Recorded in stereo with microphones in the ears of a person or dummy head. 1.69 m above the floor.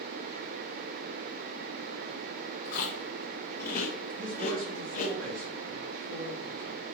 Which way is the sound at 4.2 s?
80° right.